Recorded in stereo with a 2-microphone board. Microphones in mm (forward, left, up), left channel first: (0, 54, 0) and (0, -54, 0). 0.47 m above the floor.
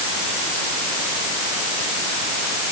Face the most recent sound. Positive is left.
No sound to turn to.